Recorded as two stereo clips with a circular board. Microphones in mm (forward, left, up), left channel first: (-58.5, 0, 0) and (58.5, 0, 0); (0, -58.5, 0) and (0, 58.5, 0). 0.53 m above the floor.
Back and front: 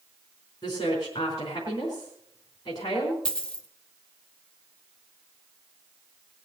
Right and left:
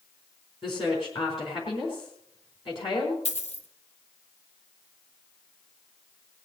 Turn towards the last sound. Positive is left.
turn(degrees=-100)